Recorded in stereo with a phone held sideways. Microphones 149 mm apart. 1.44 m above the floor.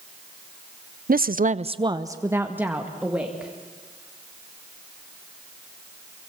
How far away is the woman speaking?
About 0.6 m.